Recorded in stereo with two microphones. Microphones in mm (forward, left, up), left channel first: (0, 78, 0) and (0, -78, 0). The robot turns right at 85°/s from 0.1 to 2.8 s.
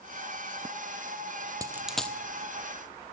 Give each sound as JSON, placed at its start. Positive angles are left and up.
{"t": 1.6, "sound": "a dropped coin", "side_deg": -25, "distance_m": 0.7}